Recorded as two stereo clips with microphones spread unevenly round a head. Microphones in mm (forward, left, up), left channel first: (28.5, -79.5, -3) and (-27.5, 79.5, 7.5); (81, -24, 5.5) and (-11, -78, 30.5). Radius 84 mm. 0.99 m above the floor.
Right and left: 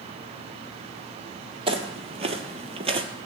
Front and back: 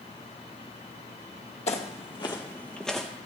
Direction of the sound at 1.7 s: 65° left.